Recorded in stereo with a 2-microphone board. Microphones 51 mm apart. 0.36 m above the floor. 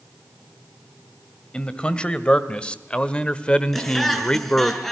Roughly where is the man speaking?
Centre.